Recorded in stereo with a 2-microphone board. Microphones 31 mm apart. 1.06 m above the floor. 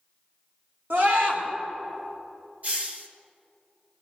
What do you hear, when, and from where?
0.9 s a scream: 85° right, 4 m
2.6 s a hiss: 50° right (ahead or behind), 1.3 m